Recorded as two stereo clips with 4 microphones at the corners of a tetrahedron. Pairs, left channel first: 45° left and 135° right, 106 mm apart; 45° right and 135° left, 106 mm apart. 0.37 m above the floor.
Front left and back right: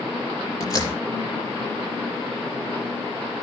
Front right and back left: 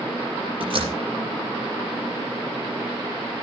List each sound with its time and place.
0.6 s a door slam: 100° left, 5.5 m